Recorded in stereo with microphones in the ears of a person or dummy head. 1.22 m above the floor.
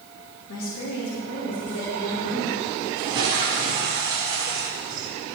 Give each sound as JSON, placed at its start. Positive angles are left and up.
{"t": 0.5, "sound": "a woman speaking", "side_deg": 75, "distance_m": 2.0}
{"t": 3.0, "sound": "a toilet flushing", "side_deg": -20, "distance_m": 1.8}